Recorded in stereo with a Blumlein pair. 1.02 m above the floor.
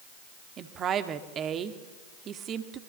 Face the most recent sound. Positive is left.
turn(degrees=-30)